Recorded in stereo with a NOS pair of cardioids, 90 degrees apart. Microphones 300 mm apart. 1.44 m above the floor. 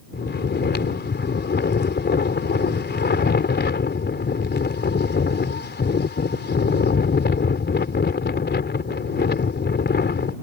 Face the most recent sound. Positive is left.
turn(degrees=35)